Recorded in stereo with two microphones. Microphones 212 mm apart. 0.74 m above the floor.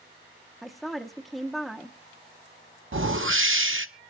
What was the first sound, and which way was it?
A woman speaking, centre (ahead or behind).